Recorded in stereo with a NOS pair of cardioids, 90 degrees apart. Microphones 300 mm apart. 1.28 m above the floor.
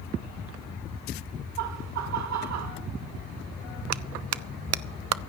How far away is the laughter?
About 1.7 m.